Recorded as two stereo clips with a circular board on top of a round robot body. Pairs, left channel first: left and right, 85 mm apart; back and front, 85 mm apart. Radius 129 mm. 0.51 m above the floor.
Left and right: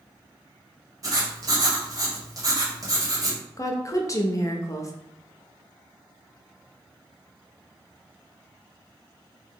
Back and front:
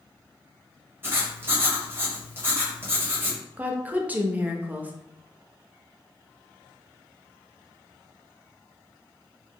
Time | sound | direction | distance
1.0 | writing | 55° right | 1.2 m
3.6 | a woman speaking | 65° left | 0.8 m